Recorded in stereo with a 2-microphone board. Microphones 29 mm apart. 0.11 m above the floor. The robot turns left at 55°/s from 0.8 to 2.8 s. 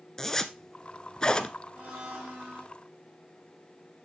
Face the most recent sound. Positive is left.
turn(degrees=-120)